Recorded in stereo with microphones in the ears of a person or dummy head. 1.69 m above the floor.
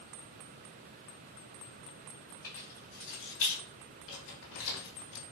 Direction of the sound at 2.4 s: 50° left (ahead or behind).